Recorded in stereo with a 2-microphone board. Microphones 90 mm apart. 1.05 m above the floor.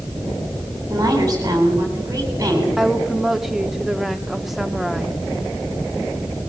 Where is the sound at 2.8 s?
5° right (ahead or behind), 2 m.